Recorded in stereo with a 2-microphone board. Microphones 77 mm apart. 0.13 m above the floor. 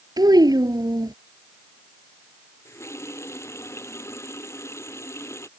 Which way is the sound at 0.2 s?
60° right (ahead or behind).